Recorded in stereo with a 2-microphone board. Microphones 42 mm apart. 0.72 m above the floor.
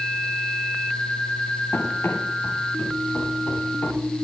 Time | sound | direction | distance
1.7 | running footsteps | 80° left | 10 m